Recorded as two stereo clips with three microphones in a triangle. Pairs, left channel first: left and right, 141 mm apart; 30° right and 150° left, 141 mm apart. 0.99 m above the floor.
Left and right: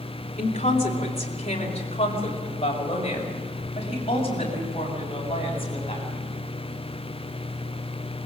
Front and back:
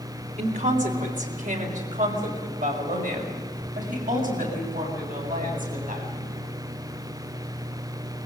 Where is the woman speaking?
125° left, 3.5 m; by 6.5 s 140° left, 9 m.